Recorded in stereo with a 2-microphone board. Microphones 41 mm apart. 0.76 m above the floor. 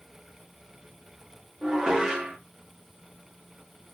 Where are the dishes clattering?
15° right (ahead or behind), 0.7 m.